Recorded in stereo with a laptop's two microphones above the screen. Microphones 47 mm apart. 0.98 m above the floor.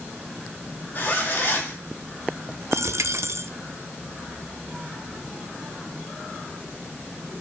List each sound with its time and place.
0.9 s a zipper: 40° left (ahead or behind), 2 m
2.7 s a dropped coin: 70° right (ahead or behind), 0.7 m